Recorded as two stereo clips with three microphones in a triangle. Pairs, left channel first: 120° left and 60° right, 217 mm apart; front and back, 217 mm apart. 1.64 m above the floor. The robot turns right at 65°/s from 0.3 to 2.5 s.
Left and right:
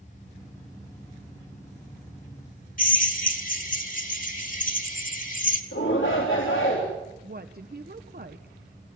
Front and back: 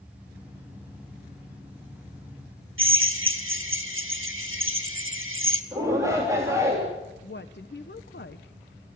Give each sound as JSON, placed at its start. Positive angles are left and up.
{"t": 2.8, "sound": "a drill", "azimuth_deg": 170, "distance_m": 2.0}
{"t": 5.7, "sound": "a shout", "azimuth_deg": 105, "distance_m": 3.5}
{"t": 7.2, "sound": "a woman speaking", "azimuth_deg": -25, "distance_m": 1.0}